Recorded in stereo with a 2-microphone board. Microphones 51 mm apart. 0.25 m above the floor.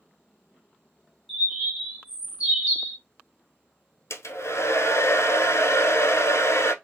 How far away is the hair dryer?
About 0.8 m.